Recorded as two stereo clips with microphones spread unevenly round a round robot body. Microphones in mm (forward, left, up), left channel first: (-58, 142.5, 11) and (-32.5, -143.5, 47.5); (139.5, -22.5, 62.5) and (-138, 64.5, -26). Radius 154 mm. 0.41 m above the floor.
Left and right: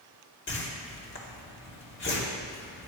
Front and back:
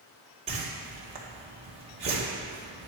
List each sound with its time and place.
0.5 s a whoosh: 115° left, 2 m